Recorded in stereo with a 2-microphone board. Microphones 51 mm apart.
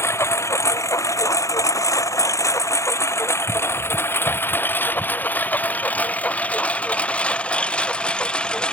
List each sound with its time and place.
0.0 s a lawn mower: 55° left (ahead or behind); by 8.7 s 20° left (ahead or behind)